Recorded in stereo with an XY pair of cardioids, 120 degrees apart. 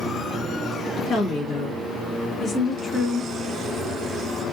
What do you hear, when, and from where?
1.1 s a woman speaking: 50° left, 1.7 m; by 3.3 s 10° left, 1.9 m